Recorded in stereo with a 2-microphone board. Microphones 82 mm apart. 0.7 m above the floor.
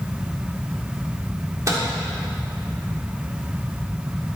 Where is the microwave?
40° right (ahead or behind), 1.6 m.